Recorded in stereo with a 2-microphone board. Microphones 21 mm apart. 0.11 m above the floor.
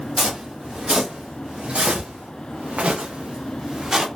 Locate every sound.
0.2 s footsteps: 45° right (ahead or behind), 1.9 m; by 4.1 s 25° right (ahead or behind), 1.1 m